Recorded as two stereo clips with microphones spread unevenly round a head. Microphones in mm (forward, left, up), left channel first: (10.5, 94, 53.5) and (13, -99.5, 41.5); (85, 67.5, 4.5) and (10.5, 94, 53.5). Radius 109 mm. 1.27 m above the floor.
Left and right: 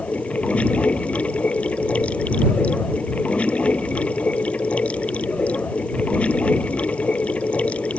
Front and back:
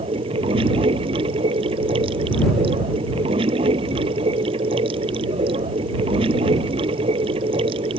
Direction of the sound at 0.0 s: 175° left.